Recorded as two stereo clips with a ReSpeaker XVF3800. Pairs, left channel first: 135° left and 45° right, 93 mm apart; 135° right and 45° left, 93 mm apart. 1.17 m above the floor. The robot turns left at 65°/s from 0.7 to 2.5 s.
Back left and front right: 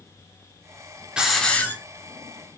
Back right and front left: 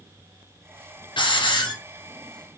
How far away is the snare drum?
No snare drum in this recording.